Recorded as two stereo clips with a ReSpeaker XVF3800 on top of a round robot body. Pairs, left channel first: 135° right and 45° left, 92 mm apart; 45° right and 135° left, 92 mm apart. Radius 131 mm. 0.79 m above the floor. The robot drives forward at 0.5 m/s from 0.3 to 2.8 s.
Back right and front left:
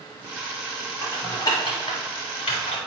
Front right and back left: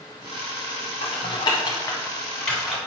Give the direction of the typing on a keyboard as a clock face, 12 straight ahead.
2 o'clock.